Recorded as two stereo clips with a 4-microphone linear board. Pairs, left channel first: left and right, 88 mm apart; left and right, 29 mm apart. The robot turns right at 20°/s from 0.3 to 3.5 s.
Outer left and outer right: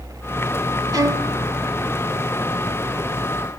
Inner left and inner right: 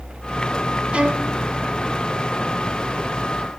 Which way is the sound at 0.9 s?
45° right (ahead or behind).